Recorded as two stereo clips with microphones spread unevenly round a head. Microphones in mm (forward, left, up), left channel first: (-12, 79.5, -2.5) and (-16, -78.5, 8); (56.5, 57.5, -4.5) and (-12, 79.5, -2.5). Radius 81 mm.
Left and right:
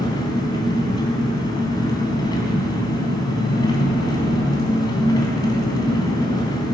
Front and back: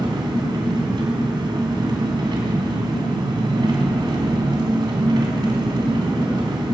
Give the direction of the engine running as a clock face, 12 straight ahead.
7 o'clock.